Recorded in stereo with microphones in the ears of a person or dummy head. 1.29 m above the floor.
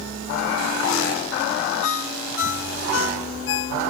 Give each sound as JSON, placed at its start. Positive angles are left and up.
{"t": 1.8, "sound": "a ringtone", "side_deg": 80}